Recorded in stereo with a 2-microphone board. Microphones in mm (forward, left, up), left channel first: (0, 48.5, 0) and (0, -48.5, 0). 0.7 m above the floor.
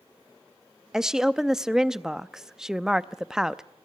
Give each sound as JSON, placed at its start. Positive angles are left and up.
{"t": 0.9, "sound": "a woman speaking", "side_deg": -5, "distance_m": 0.5}